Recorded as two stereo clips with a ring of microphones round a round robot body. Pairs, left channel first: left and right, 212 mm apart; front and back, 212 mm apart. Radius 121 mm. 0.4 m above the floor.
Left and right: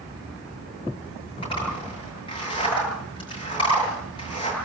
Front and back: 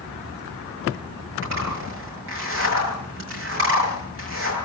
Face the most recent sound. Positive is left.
turn(degrees=160)